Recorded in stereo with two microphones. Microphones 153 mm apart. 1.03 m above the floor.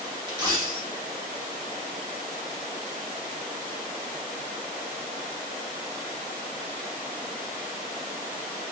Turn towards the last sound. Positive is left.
turn(degrees=-25)  # may be behind; listen again after turning